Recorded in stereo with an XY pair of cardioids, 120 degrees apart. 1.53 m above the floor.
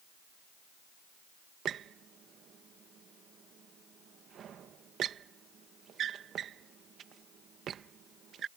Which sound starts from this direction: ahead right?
A squeak, at 1.6 s.